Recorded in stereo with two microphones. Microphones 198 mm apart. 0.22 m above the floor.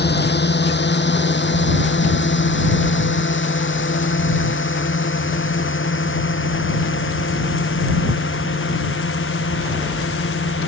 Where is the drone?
60° left (ahead or behind); by 10.7 s 85° left.